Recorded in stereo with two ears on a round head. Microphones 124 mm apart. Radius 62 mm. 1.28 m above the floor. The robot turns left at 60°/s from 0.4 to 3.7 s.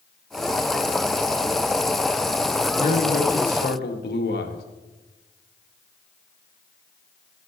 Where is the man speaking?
135° left, 1.6 m; by 4.6 s 75° left, 1.6 m.